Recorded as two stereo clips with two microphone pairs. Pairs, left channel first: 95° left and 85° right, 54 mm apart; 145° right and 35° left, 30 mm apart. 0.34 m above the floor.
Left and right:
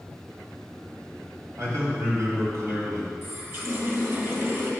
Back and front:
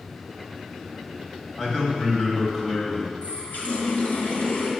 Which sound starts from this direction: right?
A man speaking, at 1.6 s.